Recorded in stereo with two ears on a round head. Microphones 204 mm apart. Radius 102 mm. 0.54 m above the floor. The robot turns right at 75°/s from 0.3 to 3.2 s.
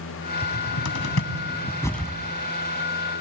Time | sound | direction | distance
0.4 | a cupboard door | 60° left (ahead or behind) | 1.4 m